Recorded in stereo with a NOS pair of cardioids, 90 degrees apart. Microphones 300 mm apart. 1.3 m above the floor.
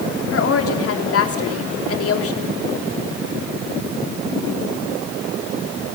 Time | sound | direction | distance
0.3 | a woman speaking | 50° left | 3.5 m